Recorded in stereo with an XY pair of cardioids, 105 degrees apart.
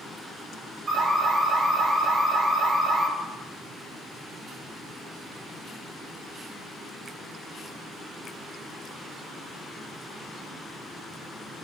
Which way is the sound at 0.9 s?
55° right.